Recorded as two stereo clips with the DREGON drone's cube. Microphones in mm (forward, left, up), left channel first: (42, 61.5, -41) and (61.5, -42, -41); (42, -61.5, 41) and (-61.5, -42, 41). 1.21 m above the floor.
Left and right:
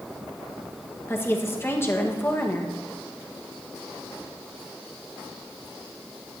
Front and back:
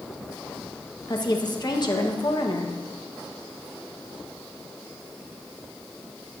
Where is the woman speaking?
35° left, 1.4 m.